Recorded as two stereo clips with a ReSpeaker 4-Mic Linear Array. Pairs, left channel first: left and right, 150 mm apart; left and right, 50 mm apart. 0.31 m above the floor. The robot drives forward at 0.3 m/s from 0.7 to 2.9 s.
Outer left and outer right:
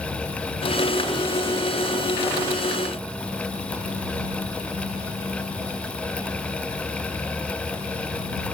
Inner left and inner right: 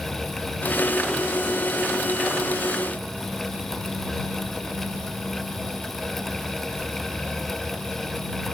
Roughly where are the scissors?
No scissors in this recording.